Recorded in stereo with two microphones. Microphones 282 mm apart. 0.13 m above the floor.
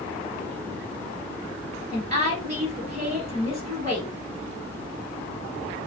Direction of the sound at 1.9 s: 25° right (ahead or behind).